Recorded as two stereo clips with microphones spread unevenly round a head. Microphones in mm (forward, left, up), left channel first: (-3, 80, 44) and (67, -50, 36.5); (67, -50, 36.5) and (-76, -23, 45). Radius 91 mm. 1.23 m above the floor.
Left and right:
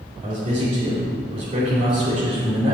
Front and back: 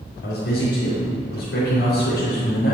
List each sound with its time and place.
0.2 s a man speaking: 10° right, 3.5 m